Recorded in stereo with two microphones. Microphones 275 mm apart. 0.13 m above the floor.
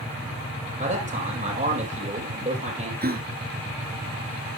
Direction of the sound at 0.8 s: 25° right (ahead or behind).